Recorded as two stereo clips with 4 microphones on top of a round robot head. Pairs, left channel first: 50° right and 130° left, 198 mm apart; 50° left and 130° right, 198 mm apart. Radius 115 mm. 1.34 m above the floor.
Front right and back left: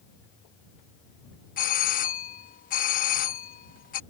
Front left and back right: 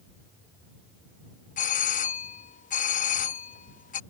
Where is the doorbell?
Straight ahead.